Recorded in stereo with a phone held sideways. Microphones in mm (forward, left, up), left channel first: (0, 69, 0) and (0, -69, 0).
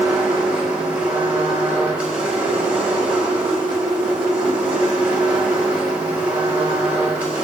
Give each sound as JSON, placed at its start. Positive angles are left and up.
{"t": 0.0, "sound": "a machine running", "side_deg": -10, "distance_m": 3.0}